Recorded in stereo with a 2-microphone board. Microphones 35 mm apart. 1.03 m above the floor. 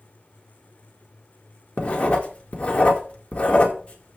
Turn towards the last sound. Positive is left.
turn(degrees=35)  # may be behind; listen again after turning